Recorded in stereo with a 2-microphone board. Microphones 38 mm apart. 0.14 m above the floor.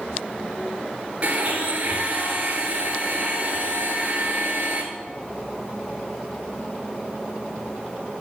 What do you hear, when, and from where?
1.2 s a blender: 40° right (ahead or behind), 3 m